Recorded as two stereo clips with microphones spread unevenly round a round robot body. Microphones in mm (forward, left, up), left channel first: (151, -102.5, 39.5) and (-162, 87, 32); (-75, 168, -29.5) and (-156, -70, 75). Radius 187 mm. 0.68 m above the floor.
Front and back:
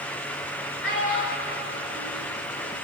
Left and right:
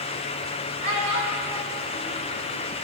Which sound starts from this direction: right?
A child speaking, at 0.8 s.